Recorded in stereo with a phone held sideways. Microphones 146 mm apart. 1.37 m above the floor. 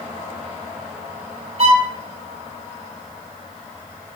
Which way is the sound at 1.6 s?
50° right (ahead or behind).